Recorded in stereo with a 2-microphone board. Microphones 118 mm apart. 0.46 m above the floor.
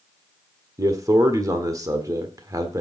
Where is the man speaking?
30° right (ahead or behind), 1.3 m.